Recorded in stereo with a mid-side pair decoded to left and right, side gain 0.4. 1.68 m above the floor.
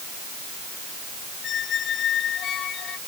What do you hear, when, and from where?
1.4 s a squeak: 65° left